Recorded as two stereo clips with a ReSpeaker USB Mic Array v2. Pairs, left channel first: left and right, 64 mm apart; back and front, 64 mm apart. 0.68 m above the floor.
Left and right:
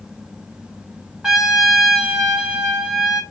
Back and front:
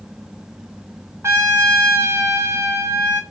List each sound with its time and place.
1.2 s a trumpet: 10° right, 0.9 m